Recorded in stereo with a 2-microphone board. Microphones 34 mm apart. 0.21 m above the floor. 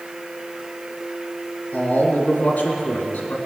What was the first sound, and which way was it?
A man speaking, 55° left (ahead or behind).